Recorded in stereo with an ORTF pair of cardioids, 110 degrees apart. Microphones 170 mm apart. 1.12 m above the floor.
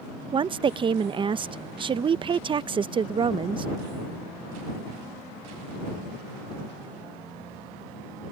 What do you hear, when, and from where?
0.3 s a woman speaking: 30° right